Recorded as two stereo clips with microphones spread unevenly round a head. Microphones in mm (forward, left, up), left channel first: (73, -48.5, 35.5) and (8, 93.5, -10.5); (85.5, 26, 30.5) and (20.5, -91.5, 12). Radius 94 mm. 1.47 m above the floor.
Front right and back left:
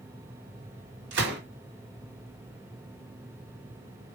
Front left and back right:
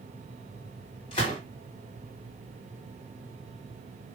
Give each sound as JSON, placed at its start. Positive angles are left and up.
{"t": 1.1, "sound": "a gunshot", "azimuth_deg": 125, "distance_m": 3.0}